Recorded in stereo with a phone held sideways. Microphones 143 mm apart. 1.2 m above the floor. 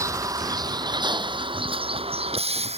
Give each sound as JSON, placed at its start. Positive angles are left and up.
{"t": 0.0, "sound": "a vehicle", "side_deg": -20}